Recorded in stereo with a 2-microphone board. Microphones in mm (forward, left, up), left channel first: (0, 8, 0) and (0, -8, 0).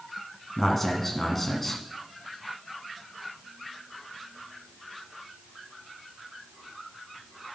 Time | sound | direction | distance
0.6 | a man speaking | 25° left (ahead or behind) | 1.9 m